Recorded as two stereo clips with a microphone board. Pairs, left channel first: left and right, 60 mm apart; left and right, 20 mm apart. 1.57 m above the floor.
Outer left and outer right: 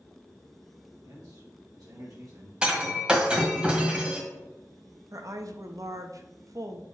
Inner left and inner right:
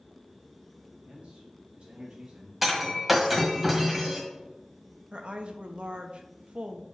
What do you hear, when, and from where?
1.1 s a man speaking: 85° right, 3 m; by 2.5 s 60° right (ahead or behind), 1.7 m
2.6 s breaking glass: 15° right (ahead or behind), 1.5 m
5.1 s a woman speaking: 60° right (ahead or behind), 0.9 m